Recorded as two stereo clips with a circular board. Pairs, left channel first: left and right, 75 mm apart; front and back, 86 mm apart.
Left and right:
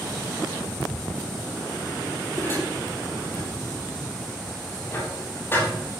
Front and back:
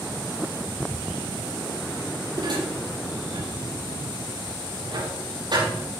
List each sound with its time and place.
2.4 s dishes clattering: 150° left, 7 m